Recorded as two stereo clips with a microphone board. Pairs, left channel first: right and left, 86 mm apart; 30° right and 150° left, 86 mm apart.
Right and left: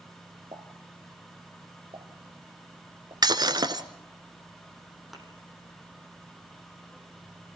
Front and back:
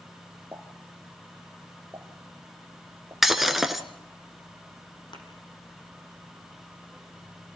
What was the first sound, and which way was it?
A pop, 85° left.